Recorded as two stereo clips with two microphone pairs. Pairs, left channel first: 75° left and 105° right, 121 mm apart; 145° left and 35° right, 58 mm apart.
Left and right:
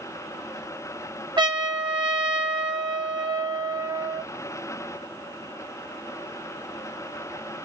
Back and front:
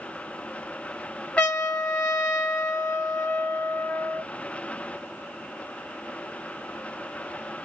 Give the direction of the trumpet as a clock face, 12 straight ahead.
5 o'clock.